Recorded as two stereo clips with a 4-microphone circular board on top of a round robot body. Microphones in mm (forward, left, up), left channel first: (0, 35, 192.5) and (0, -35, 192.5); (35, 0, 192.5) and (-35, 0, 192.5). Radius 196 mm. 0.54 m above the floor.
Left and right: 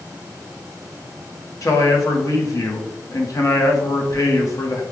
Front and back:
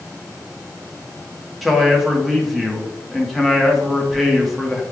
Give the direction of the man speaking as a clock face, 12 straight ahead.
9 o'clock.